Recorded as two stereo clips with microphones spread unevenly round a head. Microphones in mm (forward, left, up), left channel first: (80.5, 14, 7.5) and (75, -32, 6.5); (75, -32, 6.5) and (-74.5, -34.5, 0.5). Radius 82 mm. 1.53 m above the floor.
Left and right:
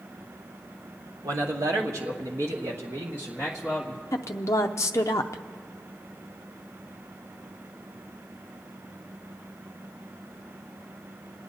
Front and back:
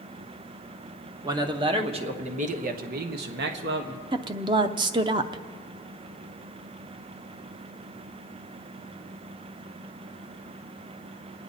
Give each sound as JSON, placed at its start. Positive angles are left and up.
{"t": 1.2, "sound": "a man speaking", "azimuth_deg": -115, "distance_m": 1.6}
{"t": 4.1, "sound": "a woman speaking", "azimuth_deg": 115, "distance_m": 0.5}